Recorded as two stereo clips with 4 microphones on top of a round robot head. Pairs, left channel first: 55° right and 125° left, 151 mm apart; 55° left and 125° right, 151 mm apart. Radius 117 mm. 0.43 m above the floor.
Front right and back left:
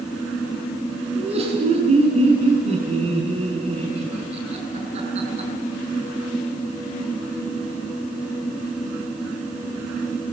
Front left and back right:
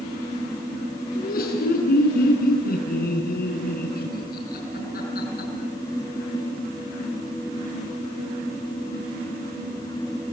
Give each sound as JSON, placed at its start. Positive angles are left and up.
{"t": 1.1, "sound": "laughter", "azimuth_deg": 75, "distance_m": 6.5}